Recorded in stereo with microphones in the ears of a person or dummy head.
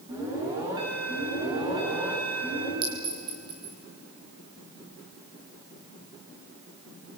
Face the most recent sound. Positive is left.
turn(degrees=-20)  # may be behind; listen again after turning